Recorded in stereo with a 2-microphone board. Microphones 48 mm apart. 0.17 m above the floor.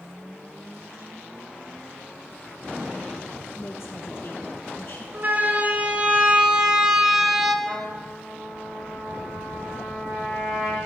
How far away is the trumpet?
About 7 m.